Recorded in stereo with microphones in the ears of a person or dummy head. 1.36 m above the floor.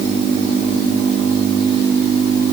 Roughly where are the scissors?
No scissors in this recording.